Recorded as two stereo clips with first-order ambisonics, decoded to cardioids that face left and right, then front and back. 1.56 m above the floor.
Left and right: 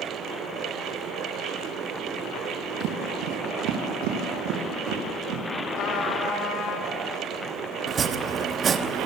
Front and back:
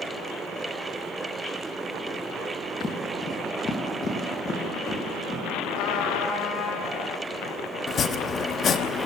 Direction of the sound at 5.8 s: 35° left.